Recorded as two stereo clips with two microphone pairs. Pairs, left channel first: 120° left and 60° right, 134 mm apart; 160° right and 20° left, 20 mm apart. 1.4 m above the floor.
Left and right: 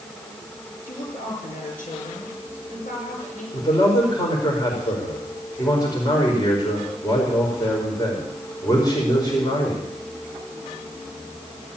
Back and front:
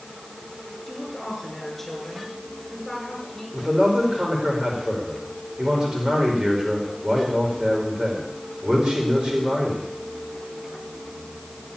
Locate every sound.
0.9 s a woman speaking: 120° left, 5.5 m
3.5 s a man speaking: 60° left, 4.5 m